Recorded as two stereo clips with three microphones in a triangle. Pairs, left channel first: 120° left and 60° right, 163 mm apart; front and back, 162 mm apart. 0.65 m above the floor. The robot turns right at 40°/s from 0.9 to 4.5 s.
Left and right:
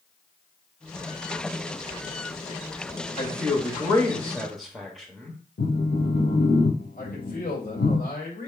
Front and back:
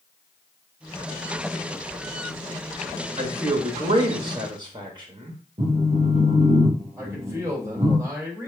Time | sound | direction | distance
3.2 | a man speaking | 155° left | 0.8 m
5.6 | a phone buzzing | 130° left | 0.7 m
7.0 | a man speaking | 110° left | 2.0 m